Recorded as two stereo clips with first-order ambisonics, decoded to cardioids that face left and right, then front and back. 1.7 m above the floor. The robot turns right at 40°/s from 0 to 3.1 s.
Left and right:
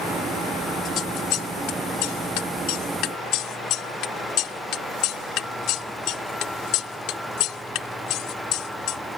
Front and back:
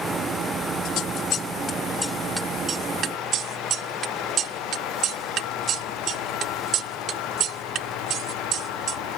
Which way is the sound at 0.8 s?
35° left.